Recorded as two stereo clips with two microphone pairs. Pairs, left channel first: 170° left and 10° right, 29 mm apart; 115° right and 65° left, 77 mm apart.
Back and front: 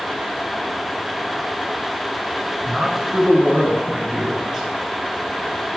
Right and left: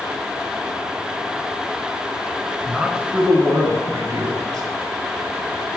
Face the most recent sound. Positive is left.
turn(degrees=65)